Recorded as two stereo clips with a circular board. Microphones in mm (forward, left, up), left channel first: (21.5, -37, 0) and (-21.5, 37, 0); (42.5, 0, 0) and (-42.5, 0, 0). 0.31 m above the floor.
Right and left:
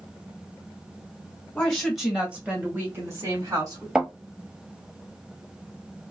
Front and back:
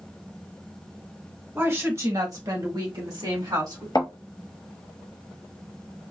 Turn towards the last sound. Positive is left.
turn(degrees=40)